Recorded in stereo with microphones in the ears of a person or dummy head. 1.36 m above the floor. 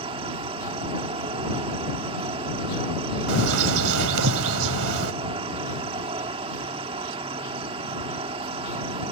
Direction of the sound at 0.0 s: 35° right (ahead or behind).